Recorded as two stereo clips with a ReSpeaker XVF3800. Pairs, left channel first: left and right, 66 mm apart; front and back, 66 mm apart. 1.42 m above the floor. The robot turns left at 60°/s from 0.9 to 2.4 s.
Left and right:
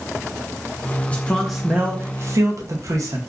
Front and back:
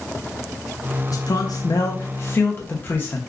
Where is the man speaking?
25° left, 0.7 m; by 3.2 s 55° right, 0.7 m.